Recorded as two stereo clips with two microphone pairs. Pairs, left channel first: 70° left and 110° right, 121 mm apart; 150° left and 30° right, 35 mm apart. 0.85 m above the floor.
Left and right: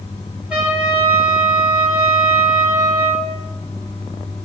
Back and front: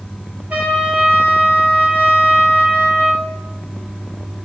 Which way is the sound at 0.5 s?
30° right.